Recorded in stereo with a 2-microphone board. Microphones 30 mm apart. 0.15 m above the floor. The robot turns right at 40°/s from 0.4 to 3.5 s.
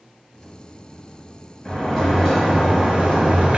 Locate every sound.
1.6 s a sliding door: 150° left, 2.5 m; by 3.6 s 135° right, 2.5 m